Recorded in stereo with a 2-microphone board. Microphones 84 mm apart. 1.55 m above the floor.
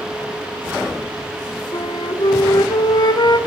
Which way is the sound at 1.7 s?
55° left (ahead or behind).